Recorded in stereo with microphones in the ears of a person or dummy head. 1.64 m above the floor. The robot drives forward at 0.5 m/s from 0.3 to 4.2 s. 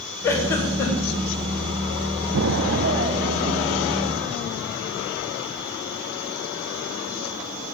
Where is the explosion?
60° right (ahead or behind), 0.5 m; by 5.6 s 25° right (ahead or behind), 1.1 m.